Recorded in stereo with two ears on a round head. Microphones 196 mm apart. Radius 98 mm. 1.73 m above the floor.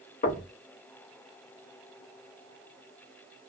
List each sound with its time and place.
0.2 s knocking: 35° left (ahead or behind), 0.9 m